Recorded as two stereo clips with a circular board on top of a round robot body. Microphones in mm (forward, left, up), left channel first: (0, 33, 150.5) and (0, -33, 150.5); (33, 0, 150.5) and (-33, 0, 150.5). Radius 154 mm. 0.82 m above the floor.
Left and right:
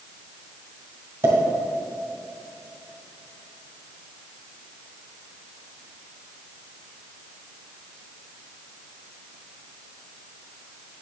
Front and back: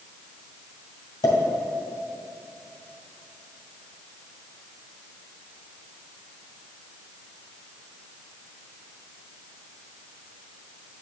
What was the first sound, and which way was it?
A pop, 35° right.